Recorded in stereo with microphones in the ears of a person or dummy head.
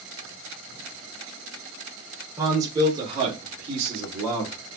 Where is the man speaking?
15° right (ahead or behind), 1.6 m; by 4.5 s 45° right (ahead or behind), 2.5 m.